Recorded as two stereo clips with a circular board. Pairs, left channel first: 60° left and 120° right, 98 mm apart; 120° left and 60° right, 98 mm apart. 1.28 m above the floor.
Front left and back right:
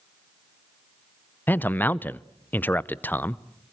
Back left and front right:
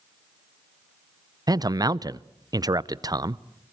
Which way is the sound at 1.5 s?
10° right.